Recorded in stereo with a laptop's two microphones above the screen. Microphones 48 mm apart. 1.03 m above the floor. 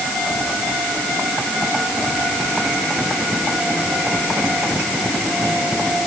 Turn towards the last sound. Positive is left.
No sound to turn to.